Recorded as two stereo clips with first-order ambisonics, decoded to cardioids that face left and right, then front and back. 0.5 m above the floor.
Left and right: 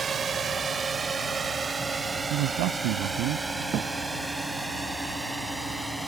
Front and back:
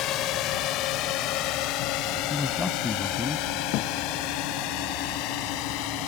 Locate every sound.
0.0 s a drone: 25° right; by 6.1 s straight ahead
2.3 s a man speaking: 75° right
3.7 s a thud: 35° right